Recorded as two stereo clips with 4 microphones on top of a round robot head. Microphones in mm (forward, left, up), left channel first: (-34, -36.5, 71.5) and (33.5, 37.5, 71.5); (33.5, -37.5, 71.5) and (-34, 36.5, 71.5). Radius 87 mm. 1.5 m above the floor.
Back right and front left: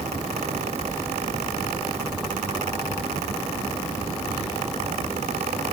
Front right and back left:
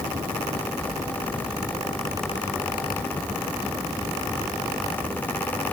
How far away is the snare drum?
I don't hear a snare drum.